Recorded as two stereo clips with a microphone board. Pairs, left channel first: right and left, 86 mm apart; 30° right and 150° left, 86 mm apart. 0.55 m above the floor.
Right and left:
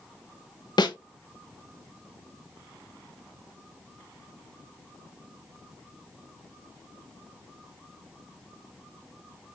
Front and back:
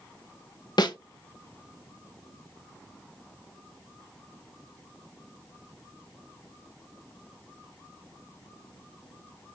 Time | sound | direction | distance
0.8 | a snare drum | 60° right | 0.8 m